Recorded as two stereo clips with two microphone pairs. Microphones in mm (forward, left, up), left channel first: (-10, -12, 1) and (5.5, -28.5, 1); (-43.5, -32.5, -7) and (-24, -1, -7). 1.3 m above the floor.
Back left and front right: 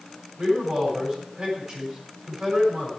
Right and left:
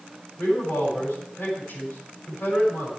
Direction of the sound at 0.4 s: 90° right.